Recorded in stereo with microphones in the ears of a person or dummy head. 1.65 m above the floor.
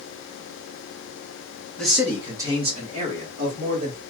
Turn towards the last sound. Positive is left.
turn(degrees=-50)  # may be behind; listen again after turning